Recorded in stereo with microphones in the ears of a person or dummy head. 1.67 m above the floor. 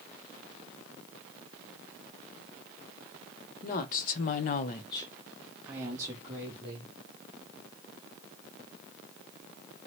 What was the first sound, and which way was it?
A woman speaking, 45° left (ahead or behind).